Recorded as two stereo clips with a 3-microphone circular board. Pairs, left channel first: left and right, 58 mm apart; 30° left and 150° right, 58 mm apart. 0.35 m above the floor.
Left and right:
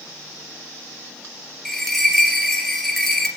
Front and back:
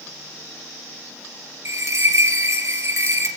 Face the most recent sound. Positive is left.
turn(degrees=175)